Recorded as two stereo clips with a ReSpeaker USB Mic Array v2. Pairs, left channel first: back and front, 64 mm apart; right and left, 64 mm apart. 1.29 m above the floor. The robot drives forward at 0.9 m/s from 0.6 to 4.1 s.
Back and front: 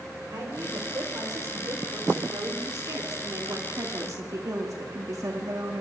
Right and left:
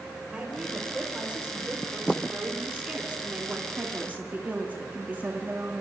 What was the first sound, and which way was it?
A woman speaking, 15° left.